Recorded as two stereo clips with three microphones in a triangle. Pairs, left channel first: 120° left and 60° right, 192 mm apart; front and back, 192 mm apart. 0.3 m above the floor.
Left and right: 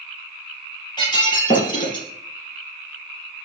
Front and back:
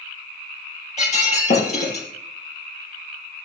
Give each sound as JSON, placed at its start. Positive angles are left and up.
{"t": 1.0, "sound": "breaking glass", "azimuth_deg": 55, "distance_m": 4.5}